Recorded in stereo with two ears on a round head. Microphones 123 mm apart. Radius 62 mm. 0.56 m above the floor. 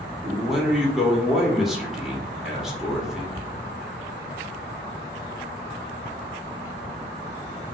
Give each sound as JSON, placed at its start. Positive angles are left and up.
{"t": 0.2, "sound": "a man speaking", "side_deg": -5, "distance_m": 0.7}